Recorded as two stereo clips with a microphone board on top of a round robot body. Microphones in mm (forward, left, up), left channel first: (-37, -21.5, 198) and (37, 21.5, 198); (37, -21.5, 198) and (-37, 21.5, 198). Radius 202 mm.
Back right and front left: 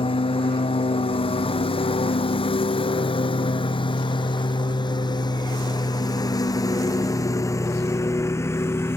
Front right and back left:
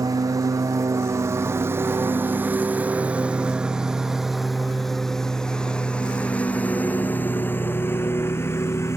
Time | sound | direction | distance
0.0 | a lawn mower | 160° right | ?